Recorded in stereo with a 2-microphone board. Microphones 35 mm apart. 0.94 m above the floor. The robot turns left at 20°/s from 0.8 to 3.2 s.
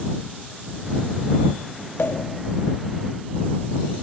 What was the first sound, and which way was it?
A pop, 85° left.